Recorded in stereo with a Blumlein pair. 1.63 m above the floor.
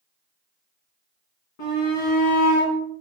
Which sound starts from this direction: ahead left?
A shout, at 1.6 s.